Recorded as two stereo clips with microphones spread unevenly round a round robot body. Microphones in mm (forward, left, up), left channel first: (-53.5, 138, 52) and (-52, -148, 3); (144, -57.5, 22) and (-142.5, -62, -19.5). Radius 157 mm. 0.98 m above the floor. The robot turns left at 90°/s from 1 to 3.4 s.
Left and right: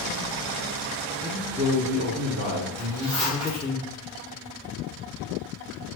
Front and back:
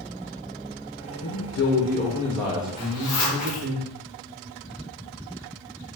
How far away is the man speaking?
About 0.6 m.